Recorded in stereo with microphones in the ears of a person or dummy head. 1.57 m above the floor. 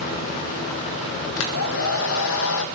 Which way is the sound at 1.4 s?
70° left (ahead or behind).